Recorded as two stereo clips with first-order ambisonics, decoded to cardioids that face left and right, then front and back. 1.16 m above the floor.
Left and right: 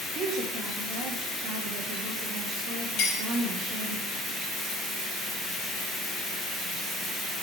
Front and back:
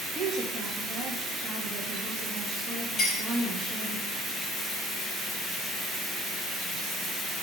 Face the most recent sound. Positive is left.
turn(degrees=75)